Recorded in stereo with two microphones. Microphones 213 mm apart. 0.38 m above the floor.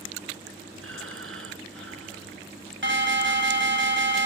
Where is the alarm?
65° right (ahead or behind), 1.8 m.